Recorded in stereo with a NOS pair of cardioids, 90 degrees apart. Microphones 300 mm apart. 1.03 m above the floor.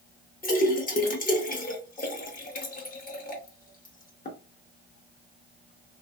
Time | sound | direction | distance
0.4 | a splash | 30° left | 1.0 m